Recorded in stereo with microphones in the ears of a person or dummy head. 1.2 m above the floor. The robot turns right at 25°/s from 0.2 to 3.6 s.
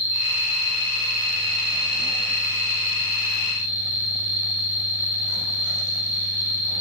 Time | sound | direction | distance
0.0 | an insect | 135° left | 0.8 m